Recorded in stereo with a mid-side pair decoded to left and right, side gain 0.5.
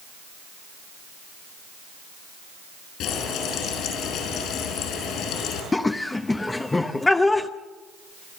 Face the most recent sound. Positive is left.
turn(degrees=20)